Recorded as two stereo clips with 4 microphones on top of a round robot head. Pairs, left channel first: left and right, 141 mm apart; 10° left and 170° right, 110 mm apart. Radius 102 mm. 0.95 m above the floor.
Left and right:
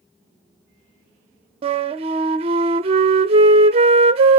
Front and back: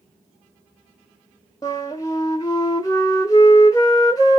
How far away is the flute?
About 0.6 m.